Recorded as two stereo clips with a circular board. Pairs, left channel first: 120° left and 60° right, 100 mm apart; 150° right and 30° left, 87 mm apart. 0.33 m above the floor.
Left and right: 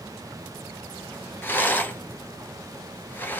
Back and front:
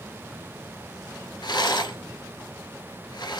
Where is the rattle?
170° right, 1.0 m.